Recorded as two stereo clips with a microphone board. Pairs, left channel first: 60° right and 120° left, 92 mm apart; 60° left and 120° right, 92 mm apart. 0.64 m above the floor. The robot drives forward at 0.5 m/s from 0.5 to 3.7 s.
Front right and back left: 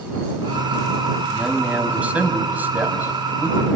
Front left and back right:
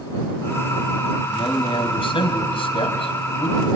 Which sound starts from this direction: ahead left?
A man speaking, at 1.3 s.